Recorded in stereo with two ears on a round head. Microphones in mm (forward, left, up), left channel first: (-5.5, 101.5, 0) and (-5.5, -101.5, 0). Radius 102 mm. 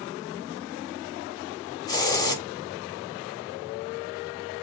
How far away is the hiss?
About 1.0 m.